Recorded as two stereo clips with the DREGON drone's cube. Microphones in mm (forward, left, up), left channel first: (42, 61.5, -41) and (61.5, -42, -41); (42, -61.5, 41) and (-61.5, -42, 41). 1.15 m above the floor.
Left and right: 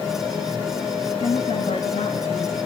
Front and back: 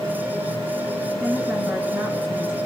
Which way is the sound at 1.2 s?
95° left.